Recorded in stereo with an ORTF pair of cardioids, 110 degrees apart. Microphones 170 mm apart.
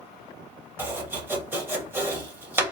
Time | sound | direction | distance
0.8 | chopping | 15° right | 1.0 m